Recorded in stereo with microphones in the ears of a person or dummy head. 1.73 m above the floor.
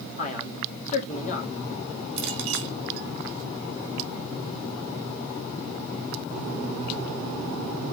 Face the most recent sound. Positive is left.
turn(degrees=-60)  # may be behind; listen again after turning